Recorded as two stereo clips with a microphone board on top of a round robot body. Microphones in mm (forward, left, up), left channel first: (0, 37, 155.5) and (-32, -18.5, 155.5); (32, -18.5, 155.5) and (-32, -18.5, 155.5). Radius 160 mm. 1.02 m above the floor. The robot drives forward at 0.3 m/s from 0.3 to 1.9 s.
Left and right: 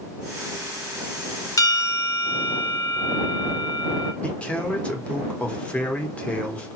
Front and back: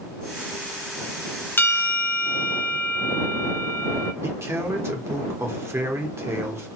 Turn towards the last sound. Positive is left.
turn(degrees=135)